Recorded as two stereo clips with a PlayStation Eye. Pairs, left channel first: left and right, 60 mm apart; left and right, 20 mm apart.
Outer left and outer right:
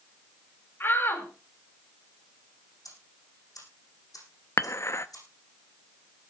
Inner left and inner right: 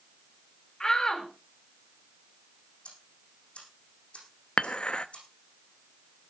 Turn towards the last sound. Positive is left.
turn(degrees=50)  # may be behind; listen again after turning